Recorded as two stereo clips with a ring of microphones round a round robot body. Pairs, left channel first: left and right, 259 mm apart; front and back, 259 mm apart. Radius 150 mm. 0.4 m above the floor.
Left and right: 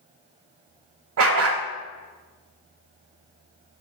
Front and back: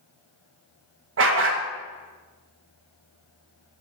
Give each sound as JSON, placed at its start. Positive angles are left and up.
{"t": 1.2, "sound": "a dog barking", "azimuth_deg": -130, "distance_m": 0.8}